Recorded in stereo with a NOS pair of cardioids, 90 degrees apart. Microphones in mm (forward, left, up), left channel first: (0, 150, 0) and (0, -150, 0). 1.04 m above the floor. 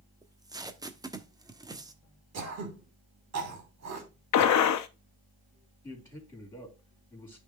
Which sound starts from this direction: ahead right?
Throat clearing, at 2.3 s.